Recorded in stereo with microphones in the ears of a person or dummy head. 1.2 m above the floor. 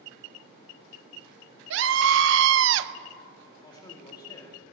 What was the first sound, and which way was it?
A scream, 65° right (ahead or behind).